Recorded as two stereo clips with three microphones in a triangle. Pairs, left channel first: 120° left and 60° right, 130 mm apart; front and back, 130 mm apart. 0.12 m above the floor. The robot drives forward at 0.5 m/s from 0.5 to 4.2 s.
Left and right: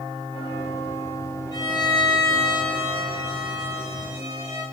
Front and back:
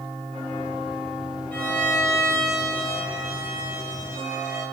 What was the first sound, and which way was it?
A violin, 70° left.